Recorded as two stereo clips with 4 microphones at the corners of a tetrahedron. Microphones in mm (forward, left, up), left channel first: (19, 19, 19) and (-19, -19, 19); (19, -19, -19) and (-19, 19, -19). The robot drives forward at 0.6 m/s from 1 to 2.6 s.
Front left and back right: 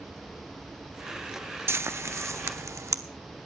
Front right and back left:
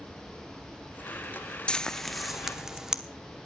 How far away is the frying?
About 0.7 m.